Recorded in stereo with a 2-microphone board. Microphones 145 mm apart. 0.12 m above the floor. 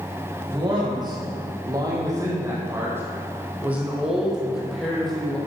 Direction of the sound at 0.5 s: 35° right (ahead or behind).